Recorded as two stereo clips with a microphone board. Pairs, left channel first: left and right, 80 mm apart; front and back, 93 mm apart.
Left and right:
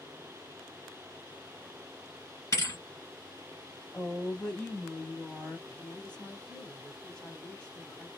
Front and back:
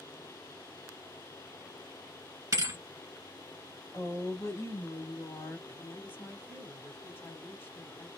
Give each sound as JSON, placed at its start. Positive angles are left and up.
{"t": 2.5, "sound": "a thud", "azimuth_deg": 130, "distance_m": 1.2}
{"t": 3.9, "sound": "a woman speaking", "azimuth_deg": 15, "distance_m": 1.1}
{"t": 5.7, "sound": "a woman speaking", "azimuth_deg": 30, "distance_m": 1.5}